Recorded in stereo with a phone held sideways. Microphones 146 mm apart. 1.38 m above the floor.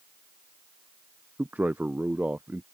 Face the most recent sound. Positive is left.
turn(degrees=-10)  # may be behind; listen again after turning